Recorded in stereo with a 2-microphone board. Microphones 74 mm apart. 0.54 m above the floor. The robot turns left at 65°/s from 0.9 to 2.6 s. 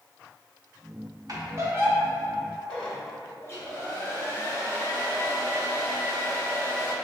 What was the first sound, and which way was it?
A squeak, 45° right (ahead or behind).